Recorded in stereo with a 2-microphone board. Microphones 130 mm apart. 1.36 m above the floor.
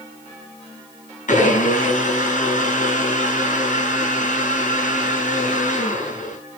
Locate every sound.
1.3 s a blender: 75° left (ahead or behind), 5 m